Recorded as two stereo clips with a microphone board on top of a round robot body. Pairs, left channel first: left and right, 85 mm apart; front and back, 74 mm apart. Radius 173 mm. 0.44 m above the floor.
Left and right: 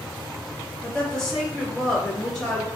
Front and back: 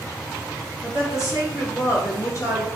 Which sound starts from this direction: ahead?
A woman speaking, at 0.8 s.